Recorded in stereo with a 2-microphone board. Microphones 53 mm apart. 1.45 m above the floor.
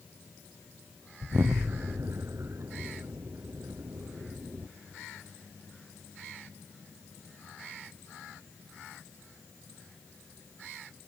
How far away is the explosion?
About 0.6 m.